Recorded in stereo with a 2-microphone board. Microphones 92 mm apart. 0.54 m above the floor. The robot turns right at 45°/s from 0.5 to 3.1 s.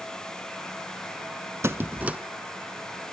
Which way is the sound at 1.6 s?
35° right (ahead or behind).